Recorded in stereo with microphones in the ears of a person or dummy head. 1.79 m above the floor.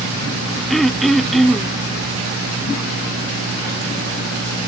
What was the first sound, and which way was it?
Throat clearing, centre (ahead or behind).